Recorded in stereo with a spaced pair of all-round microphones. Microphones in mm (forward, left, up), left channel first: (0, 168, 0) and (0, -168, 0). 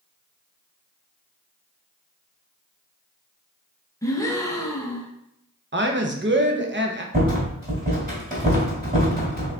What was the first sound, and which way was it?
A gasp, 10° left (ahead or behind).